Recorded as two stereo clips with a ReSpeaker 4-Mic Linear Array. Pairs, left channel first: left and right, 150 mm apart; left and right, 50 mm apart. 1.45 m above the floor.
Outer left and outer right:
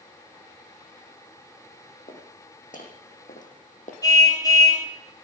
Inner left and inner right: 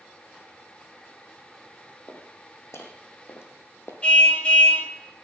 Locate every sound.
2.1 s footsteps: 65° left (ahead or behind), 5 m; by 3.9 s 60° left (ahead or behind), 3 m
4.0 s a car horn: 25° left (ahead or behind), 3 m